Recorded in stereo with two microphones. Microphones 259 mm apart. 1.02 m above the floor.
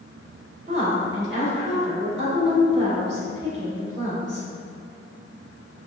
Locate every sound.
0.7 s a woman speaking: 45° right (ahead or behind), 1.8 m